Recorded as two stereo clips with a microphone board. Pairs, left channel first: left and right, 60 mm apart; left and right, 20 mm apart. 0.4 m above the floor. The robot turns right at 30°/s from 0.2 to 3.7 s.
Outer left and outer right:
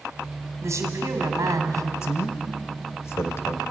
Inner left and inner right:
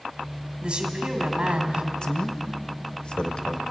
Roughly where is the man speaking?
Left.